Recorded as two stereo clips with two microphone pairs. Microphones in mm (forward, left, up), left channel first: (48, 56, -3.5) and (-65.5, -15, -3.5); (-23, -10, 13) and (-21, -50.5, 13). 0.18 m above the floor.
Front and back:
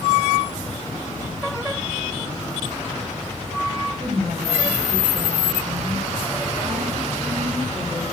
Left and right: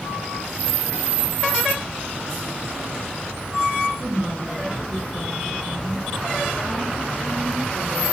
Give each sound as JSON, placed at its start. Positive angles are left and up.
{"t": 4.0, "sound": "a woman speaking", "azimuth_deg": 145, "distance_m": 2.5}